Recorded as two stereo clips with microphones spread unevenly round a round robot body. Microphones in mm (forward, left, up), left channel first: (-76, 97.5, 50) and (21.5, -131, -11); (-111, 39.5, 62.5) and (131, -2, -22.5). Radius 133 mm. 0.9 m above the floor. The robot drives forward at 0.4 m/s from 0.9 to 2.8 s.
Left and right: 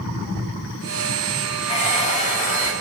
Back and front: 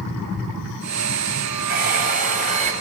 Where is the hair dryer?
50° left, 2.5 m; by 2.7 s 55° left, 2.5 m.